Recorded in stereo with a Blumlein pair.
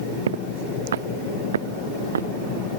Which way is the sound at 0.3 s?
60° right.